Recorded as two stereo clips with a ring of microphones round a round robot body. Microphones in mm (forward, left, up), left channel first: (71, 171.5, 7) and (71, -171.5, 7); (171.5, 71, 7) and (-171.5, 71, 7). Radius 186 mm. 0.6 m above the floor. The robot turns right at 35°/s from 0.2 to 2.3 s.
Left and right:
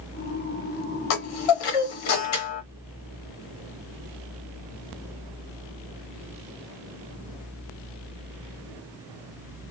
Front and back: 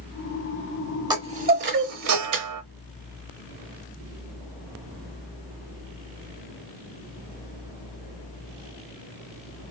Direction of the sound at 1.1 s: 100° left.